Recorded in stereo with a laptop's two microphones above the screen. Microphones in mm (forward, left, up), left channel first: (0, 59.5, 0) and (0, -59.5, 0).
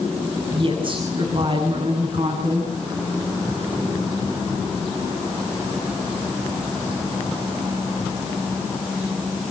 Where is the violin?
No violin in this recording.